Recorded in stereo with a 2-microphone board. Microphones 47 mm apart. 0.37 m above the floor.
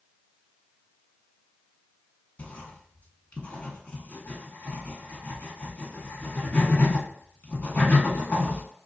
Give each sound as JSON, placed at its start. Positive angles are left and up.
{"t": 2.4, "sound": "writing", "side_deg": 35, "distance_m": 0.7}